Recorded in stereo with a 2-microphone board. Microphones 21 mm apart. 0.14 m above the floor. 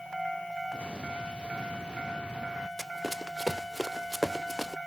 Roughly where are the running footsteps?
Centre.